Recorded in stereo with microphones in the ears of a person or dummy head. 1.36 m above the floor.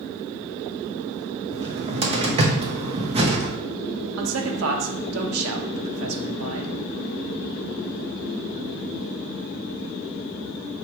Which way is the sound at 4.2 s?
85° right.